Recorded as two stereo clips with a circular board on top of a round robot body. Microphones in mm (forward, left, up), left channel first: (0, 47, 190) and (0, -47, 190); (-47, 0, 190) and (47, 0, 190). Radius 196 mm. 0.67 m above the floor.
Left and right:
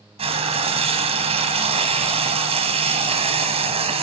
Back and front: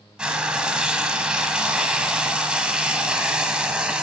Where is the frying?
80° right, 1.0 m.